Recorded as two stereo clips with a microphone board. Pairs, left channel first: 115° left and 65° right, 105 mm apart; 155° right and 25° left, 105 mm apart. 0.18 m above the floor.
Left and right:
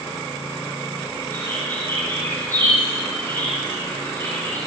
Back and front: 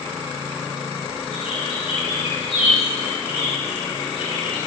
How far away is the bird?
About 7.5 m.